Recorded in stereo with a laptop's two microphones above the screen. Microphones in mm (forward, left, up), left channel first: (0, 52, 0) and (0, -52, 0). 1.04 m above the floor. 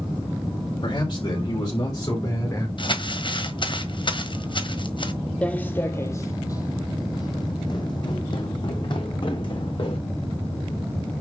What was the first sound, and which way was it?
A man speaking, 45° left (ahead or behind).